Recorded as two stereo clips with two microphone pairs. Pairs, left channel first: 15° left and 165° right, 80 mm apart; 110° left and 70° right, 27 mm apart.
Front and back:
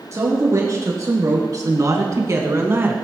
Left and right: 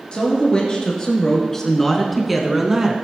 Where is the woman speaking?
155° left, 3 m; by 3.0 s 125° right, 1.8 m.